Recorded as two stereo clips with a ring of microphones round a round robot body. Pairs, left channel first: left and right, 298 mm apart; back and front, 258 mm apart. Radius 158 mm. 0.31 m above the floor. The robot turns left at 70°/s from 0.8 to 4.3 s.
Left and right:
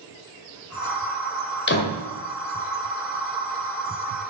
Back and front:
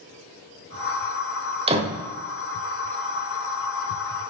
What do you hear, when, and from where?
1.7 s a door slam: 60° left, 1.3 m; by 2.0 s 35° left, 1.3 m